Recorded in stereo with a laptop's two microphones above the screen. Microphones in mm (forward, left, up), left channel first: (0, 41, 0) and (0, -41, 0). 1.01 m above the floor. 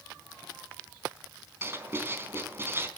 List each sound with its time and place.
1.6 s writing: 30° right (ahead or behind), 3.5 m